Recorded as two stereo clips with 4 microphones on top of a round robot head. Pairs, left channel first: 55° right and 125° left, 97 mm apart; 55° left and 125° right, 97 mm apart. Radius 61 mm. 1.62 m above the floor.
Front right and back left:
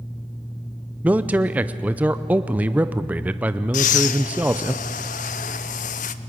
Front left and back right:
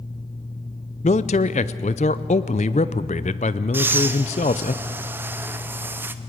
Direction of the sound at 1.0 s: 55° left.